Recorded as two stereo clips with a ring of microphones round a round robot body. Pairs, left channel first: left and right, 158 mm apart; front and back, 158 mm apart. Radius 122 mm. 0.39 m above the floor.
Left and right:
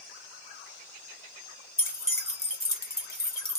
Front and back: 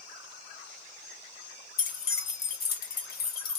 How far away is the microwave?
No microwave in this recording.